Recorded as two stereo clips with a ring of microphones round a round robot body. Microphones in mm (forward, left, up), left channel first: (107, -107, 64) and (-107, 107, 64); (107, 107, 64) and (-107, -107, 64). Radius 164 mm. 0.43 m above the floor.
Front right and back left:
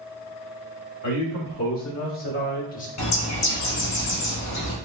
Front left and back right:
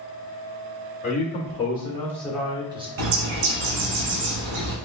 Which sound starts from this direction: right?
A bird, at 3.0 s.